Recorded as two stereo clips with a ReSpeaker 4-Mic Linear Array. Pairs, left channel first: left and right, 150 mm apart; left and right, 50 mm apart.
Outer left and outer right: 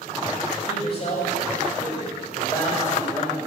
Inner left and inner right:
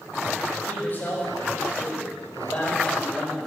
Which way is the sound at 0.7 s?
45° left (ahead or behind).